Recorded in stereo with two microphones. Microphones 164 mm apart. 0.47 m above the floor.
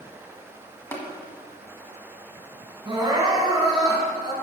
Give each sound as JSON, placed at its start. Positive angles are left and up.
{"t": 0.9, "sound": "tapping", "side_deg": 15, "distance_m": 1.4}
{"t": 2.9, "sound": "crying", "side_deg": -25, "distance_m": 3.0}